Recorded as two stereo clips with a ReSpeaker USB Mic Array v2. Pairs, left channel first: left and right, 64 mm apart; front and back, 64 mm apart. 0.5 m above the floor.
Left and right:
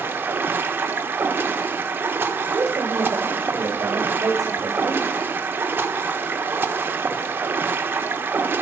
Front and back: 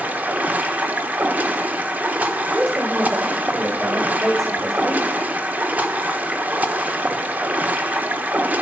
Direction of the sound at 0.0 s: 125° right.